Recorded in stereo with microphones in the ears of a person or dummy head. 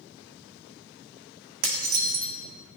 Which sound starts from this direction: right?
Dishes clattering, at 1.6 s.